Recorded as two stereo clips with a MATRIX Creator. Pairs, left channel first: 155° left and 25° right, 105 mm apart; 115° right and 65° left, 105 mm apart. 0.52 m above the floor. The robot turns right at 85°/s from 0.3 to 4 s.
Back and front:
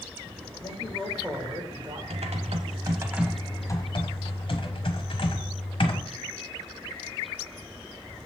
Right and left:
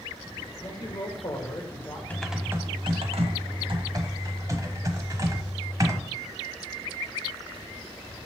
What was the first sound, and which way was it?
A man speaking, 155° right.